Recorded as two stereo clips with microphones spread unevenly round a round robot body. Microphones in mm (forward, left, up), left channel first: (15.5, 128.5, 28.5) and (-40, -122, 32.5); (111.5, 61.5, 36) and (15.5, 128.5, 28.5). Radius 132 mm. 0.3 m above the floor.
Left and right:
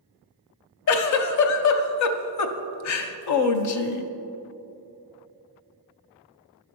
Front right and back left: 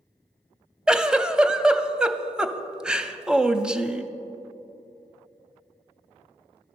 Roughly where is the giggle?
Ahead left.